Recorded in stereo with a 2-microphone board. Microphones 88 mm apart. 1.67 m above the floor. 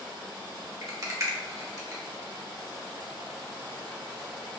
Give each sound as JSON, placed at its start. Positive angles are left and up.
{"t": 0.8, "sound": "a rattle", "side_deg": -40, "distance_m": 0.8}